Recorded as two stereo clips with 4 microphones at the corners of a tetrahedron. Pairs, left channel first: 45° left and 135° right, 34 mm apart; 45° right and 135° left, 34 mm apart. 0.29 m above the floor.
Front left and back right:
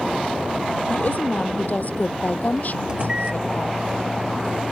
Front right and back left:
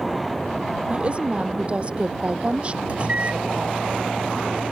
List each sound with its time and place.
0.9 s a woman speaking: 80° left
2.9 s a microwave: 170° left